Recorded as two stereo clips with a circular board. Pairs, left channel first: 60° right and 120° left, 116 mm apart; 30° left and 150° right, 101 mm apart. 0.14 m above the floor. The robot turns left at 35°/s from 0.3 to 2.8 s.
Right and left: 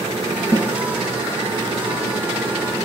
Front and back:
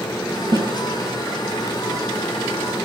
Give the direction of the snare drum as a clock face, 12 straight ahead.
6 o'clock.